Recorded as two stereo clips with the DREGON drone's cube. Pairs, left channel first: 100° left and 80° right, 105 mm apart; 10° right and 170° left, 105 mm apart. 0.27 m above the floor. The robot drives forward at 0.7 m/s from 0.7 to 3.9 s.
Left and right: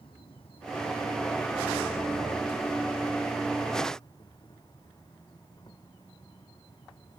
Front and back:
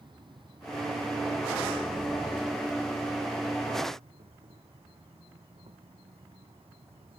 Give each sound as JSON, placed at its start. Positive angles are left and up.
{"t": 0.0, "sound": "an insect", "azimuth_deg": 130}